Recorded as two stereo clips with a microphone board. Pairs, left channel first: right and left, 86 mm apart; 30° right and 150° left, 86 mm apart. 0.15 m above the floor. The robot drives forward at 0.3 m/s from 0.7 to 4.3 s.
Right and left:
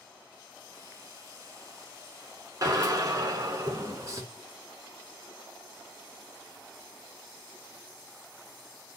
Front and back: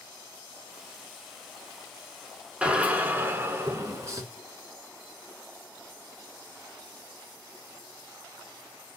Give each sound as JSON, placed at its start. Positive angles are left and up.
{"t": 2.6, "sound": "a drill", "azimuth_deg": 80, "distance_m": 0.8}